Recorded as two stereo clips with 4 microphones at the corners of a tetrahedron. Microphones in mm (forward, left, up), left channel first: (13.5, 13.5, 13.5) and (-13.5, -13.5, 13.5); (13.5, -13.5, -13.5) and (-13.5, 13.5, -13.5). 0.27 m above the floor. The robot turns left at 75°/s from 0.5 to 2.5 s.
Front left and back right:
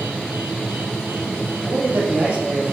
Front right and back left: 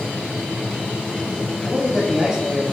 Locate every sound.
1.6 s a man speaking: 115° right, 1.1 m; by 2.7 s 175° right, 1.1 m